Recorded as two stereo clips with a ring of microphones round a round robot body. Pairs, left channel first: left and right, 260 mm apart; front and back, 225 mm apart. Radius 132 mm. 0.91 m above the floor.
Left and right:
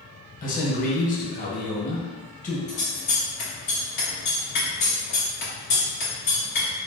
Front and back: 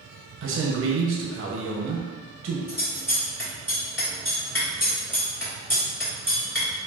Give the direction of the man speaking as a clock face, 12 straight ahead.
7 o'clock.